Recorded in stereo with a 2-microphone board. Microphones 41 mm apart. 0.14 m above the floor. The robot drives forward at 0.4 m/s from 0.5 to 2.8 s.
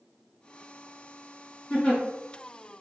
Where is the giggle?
30° left (ahead or behind), 1.8 m.